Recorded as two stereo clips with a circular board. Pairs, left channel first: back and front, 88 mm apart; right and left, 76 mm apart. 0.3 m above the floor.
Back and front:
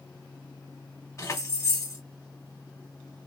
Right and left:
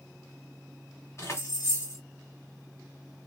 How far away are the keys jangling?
About 1.8 m.